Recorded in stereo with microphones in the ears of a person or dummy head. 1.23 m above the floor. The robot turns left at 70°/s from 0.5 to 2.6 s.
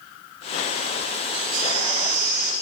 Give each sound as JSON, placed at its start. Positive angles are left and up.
{"t": 1.3, "sound": "a baby crying", "azimuth_deg": -25, "distance_m": 5.5}